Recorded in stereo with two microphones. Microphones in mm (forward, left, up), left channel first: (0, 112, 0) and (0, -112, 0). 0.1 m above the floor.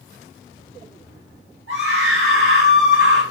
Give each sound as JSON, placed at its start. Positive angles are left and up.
{"t": 1.7, "sound": "a scream", "side_deg": -65, "distance_m": 6.5}